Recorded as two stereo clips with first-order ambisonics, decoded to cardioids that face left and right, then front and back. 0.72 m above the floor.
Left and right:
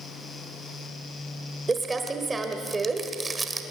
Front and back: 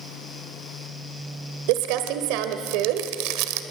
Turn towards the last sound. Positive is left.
turn(degrees=-165)